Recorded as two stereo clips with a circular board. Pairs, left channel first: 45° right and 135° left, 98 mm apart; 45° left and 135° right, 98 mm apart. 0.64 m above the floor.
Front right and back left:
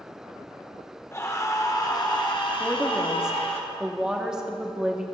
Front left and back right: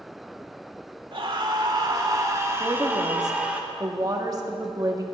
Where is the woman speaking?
145° right, 1.2 m.